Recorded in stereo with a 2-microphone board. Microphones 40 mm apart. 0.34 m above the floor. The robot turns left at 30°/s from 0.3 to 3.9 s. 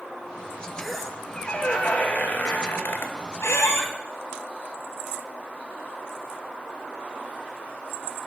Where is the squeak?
175° left, 1.0 m; by 3.9 s 85° left, 1.0 m.